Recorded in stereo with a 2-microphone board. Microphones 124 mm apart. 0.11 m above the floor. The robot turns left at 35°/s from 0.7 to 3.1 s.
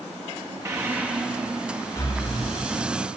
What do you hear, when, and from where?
0.7 s breathing: 25° right (ahead or behind), 2.5 m; by 2.6 s 45° left (ahead or behind), 2.5 m